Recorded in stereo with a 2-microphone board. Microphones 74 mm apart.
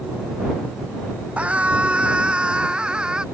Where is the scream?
15° right (ahead or behind); by 3.2 s 10° right (ahead or behind).